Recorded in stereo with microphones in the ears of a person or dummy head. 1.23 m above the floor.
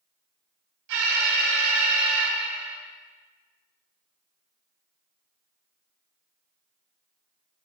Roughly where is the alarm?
Right.